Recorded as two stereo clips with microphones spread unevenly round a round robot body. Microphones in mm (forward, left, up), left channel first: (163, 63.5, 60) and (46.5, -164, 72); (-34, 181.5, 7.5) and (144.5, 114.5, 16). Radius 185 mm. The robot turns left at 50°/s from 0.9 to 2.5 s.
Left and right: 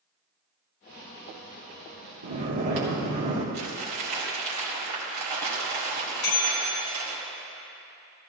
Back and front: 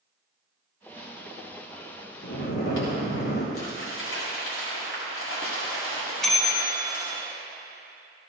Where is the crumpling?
155° right, 1.9 m.